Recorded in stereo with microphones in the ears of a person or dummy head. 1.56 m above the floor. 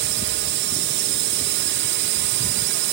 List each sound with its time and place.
0.0 s a drone: 50° right (ahead or behind)